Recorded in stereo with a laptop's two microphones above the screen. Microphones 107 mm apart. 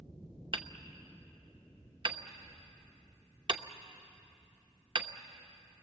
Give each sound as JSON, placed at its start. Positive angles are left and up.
{"t": 0.5, "sound": "hammering", "side_deg": -50, "distance_m": 0.9}